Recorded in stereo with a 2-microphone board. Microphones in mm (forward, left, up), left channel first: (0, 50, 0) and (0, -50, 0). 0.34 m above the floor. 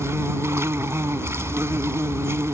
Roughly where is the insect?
Right.